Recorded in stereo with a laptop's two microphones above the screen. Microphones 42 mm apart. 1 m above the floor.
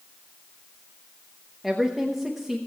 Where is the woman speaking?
5° right (ahead or behind), 1.0 m.